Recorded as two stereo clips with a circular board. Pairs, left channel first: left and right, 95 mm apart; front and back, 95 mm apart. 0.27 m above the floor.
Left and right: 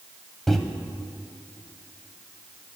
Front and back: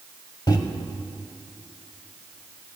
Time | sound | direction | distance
0.5 | a microwave | 5° left | 0.9 m